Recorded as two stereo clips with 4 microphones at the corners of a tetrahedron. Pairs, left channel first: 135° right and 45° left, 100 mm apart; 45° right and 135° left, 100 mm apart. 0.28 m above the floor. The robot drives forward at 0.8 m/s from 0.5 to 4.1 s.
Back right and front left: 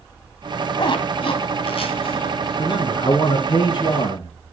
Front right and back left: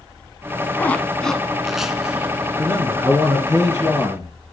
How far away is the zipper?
About 1.4 m.